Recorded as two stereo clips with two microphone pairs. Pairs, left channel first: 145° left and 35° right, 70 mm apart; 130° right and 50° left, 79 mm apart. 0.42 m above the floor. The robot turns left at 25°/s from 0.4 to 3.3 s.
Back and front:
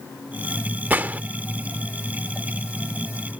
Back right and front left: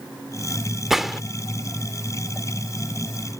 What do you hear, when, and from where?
0.9 s a gunshot: 30° right; by 1.2 s 35° right